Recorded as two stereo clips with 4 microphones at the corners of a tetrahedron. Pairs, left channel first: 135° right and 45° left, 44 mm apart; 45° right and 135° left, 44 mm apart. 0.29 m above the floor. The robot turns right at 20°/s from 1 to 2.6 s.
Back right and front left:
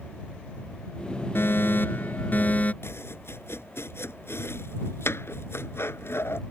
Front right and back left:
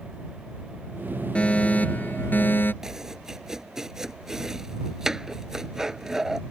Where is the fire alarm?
110° right; by 2.7 s 85° right.